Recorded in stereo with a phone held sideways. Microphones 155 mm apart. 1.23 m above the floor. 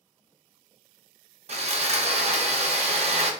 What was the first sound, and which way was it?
Sawing, 45° right (ahead or behind).